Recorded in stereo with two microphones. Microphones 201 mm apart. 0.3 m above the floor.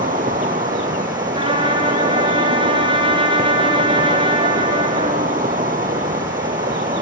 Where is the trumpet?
25° right (ahead or behind), 4 m.